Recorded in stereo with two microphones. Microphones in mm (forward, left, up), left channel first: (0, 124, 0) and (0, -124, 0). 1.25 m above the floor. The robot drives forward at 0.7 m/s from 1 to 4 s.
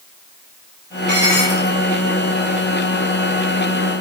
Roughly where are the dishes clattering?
Right.